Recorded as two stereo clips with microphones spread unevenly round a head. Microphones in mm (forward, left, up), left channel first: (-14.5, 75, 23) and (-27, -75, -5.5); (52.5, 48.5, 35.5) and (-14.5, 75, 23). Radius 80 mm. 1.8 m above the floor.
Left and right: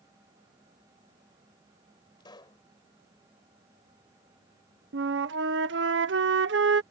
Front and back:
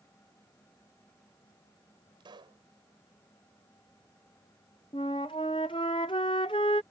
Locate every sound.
2.2 s a pop: 145° left
4.9 s a flute: 70° right